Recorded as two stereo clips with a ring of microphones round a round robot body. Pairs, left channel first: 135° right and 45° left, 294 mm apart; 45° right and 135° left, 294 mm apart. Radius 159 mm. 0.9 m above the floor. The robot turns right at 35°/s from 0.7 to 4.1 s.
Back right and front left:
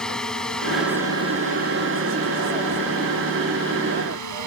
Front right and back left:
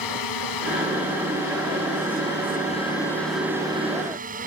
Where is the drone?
45° right; by 4.5 s 70° left.